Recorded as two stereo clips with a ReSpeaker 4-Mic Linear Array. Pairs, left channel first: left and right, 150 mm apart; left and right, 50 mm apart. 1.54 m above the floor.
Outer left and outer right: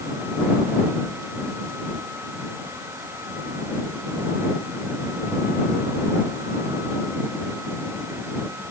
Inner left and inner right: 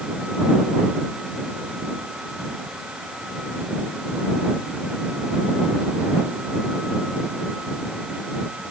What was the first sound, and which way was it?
Only background noise.